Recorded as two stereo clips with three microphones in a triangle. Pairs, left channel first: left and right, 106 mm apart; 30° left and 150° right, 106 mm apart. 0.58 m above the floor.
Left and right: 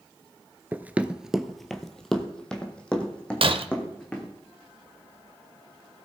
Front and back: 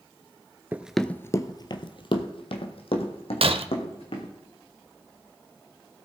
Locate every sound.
0.7 s running footsteps: 125° right, 0.5 m; by 4.3 s 10° left, 2.5 m
3.4 s breaking glass: 125° right, 0.6 m